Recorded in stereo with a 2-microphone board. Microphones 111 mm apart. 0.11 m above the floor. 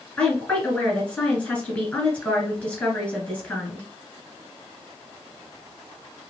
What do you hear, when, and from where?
0.2 s a woman speaking: 10° left (ahead or behind), 1.4 m